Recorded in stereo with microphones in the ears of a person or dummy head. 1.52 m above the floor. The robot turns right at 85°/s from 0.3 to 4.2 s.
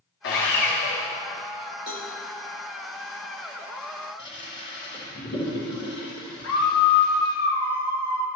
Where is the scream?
70° left (ahead or behind), 1.3 m.